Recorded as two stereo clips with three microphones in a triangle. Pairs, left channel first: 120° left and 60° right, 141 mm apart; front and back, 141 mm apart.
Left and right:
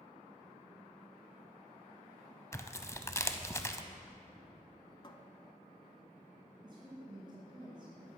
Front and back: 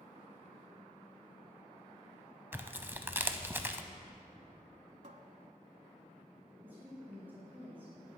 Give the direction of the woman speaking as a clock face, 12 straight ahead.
4 o'clock.